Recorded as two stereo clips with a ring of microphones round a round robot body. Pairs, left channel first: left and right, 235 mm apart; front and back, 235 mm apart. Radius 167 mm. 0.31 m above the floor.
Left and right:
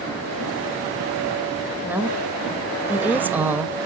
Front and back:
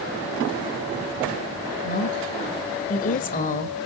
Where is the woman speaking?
15° right, 1.6 m.